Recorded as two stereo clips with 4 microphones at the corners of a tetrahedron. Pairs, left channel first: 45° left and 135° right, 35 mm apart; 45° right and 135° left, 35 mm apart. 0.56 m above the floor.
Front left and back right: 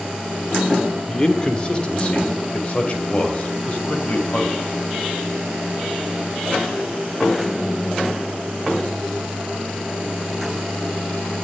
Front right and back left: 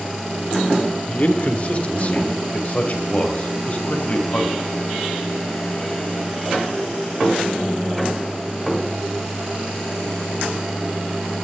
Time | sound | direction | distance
1.1 | a man speaking | 20° right | 1.8 m